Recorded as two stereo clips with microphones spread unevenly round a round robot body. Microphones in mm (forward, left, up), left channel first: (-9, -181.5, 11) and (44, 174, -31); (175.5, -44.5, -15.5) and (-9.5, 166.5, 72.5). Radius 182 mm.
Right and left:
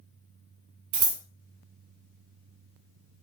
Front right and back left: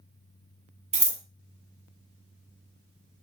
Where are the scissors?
50° left, 0.9 m.